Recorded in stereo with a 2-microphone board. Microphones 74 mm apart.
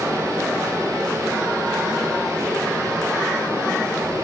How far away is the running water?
About 2.5 m.